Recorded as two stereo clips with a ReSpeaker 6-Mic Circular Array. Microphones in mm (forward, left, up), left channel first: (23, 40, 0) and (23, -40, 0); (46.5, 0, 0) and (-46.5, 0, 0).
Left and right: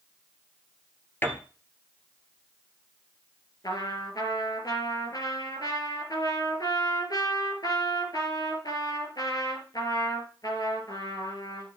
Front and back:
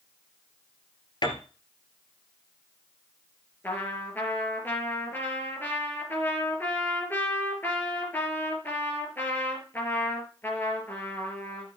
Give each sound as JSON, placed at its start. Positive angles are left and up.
{"t": 1.2, "sound": "a piano", "azimuth_deg": 25, "distance_m": 1.7}
{"t": 3.6, "sound": "a trumpet", "azimuth_deg": 65, "distance_m": 3.0}